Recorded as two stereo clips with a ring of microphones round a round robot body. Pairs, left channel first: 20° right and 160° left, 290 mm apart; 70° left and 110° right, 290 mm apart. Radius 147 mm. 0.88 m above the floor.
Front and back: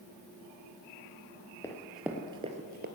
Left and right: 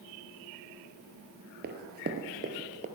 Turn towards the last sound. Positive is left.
turn(degrees=-165)